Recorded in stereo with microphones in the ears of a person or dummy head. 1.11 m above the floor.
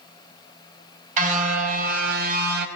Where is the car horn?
45° right (ahead or behind), 4.5 m; by 2.7 s 65° right (ahead or behind), 3.5 m.